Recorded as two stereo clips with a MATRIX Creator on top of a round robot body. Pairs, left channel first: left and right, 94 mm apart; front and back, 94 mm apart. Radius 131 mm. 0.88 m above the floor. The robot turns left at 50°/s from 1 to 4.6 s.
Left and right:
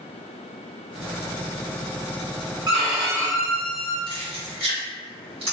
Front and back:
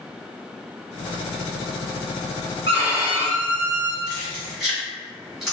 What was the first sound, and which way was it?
A violin, 140° right.